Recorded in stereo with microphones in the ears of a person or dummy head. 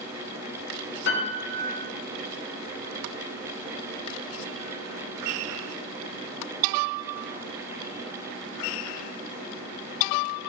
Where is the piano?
65° left (ahead or behind), 0.8 m.